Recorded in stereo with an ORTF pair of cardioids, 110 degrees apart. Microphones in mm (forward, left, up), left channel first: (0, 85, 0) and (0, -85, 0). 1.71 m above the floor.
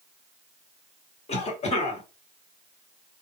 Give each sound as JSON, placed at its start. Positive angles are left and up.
{"t": 1.3, "sound": "a cough", "azimuth_deg": 40, "distance_m": 1.7}